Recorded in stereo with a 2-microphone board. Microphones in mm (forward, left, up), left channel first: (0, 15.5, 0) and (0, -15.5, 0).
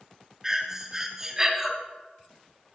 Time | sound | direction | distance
0.4 | breathing | 15° right (ahead or behind) | 1.4 m